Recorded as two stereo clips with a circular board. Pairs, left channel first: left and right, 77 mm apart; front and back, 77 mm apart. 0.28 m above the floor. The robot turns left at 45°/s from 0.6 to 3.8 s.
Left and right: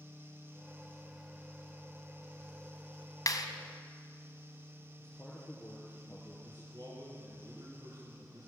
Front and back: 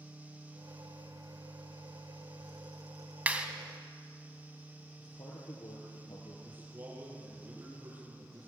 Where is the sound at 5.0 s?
10° left, 4.5 m.